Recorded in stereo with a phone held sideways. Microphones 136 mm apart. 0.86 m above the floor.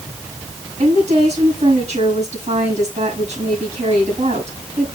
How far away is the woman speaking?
About 6 m.